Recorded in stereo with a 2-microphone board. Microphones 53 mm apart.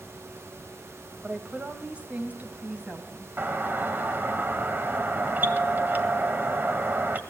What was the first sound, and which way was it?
A woman speaking, 25° right (ahead or behind).